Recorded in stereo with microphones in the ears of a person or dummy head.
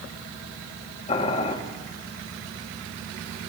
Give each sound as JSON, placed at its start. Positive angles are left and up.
{"t": 1.1, "sound": "boiling", "side_deg": 40, "distance_m": 1.8}